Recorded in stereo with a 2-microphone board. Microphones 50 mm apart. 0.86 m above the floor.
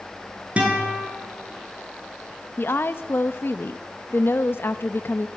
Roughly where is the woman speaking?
Left.